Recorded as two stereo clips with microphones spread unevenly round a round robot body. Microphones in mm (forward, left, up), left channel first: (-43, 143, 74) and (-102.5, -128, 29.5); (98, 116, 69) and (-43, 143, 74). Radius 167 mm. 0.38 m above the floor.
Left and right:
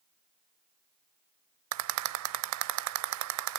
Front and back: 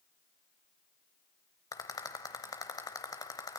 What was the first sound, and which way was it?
A rattle, 80° right.